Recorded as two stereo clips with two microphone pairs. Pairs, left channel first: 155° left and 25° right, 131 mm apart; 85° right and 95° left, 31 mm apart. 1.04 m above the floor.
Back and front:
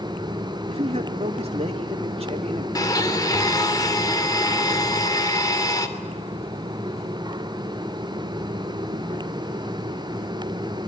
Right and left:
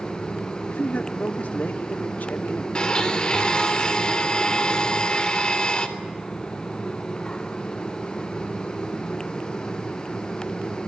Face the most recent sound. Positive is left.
turn(degrees=-140)